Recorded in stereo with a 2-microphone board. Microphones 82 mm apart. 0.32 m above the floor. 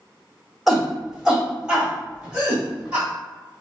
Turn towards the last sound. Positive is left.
turn(degrees=-15)  # may be behind; listen again after turning